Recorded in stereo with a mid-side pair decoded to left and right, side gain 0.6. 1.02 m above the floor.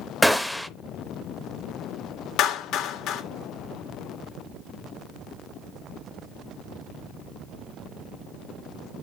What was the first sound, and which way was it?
A gunshot, straight ahead.